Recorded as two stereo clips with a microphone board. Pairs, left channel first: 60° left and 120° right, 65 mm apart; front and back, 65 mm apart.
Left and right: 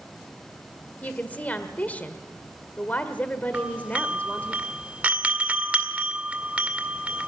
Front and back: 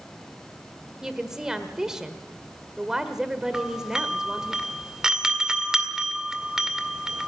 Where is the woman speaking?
105° left, 1.3 m.